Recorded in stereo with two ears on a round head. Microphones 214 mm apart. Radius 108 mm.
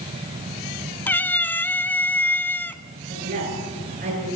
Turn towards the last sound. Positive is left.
turn(degrees=-40)  # may be behind; listen again after turning